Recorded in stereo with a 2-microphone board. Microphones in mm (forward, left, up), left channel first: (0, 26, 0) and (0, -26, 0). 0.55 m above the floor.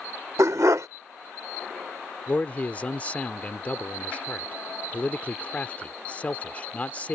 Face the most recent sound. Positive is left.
turn(degrees=30)  # may be behind; listen again after turning